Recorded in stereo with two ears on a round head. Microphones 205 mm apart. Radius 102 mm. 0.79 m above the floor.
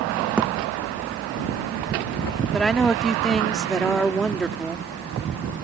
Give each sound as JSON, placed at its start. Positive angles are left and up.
{"t": 0.4, "sound": "a thud", "side_deg": -5}
{"t": 2.5, "sound": "a woman speaking", "side_deg": 0}